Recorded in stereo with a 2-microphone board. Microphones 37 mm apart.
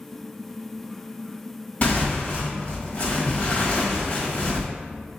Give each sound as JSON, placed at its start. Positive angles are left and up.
{"t": 1.8, "sound": "tearing paper", "side_deg": 40, "distance_m": 1.5}